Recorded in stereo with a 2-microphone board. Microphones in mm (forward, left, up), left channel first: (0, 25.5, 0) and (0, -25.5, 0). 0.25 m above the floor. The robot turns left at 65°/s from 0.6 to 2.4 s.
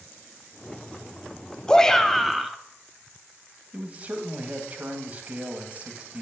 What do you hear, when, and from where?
1.7 s a shout: 15° left (ahead or behind), 1.0 m; by 2.6 s 5° right (ahead or behind), 1.0 m
3.7 s a man speaking: 30° right (ahead or behind), 1.8 m